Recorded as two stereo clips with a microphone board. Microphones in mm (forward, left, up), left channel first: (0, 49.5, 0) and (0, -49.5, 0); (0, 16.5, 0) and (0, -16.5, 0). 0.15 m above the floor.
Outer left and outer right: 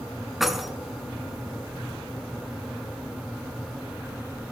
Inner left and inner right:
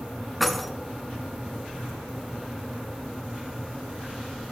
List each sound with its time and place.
0.4 s keys jangling: centre (ahead or behind), 0.8 m